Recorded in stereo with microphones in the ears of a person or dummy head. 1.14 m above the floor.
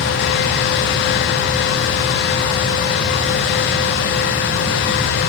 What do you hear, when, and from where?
Only background noise.